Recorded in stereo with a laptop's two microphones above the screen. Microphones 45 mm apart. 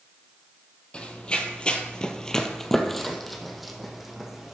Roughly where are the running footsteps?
Left.